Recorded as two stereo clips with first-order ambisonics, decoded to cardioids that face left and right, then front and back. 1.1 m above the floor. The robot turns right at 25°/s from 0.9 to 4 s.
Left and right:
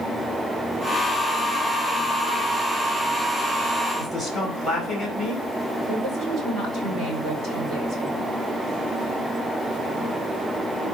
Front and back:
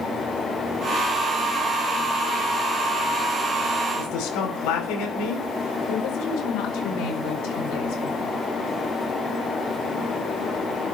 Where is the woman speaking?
30° right, 4.5 m.